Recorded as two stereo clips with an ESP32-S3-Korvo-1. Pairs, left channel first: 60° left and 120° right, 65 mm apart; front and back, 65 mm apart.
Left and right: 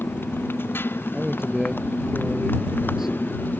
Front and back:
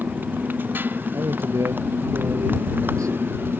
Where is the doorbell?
No doorbell in this recording.